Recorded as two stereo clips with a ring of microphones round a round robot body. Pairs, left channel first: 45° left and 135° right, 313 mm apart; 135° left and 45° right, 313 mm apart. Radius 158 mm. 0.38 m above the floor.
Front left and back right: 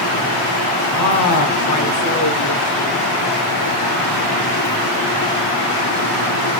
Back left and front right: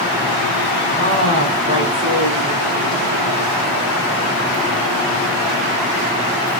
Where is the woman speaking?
10° left, 4 m; by 3.0 s 10° right, 2.5 m.